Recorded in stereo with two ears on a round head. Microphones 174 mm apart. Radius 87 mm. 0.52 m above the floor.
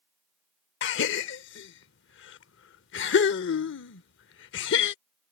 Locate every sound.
0.8 s a gasp: 65° left (ahead or behind)